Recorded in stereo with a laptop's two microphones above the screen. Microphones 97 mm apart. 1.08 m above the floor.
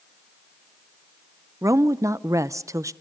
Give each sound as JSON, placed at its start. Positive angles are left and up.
{"t": 1.6, "sound": "a woman speaking", "side_deg": -30, "distance_m": 0.6}